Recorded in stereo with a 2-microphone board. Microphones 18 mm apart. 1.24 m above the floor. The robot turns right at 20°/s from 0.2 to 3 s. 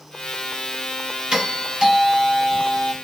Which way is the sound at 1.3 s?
60° right.